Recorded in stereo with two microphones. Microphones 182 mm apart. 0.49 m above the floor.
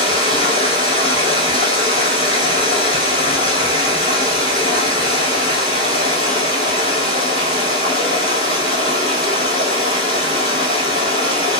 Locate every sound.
0.0 s running water: 30° left (ahead or behind), 0.9 m